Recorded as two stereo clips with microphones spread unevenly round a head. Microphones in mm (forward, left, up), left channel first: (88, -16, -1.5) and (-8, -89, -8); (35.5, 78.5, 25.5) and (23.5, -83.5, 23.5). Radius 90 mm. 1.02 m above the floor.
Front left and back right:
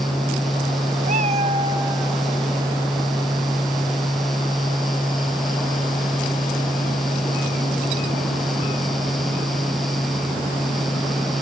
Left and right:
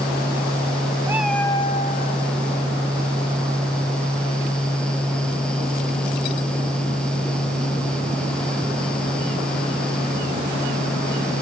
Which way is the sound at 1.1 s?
170° right.